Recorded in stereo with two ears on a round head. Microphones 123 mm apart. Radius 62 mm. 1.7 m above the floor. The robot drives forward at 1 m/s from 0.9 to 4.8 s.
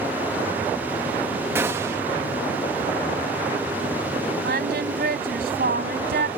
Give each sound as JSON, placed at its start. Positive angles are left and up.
{"t": 1.6, "sound": "a gunshot", "side_deg": -15}
{"t": 4.4, "sound": "singing", "side_deg": -85}